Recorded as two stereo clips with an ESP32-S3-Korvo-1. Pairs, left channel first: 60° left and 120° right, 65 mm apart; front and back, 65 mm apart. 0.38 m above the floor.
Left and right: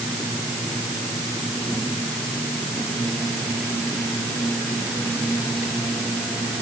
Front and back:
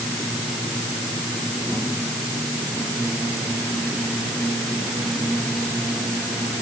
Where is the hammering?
No hammering in this recording.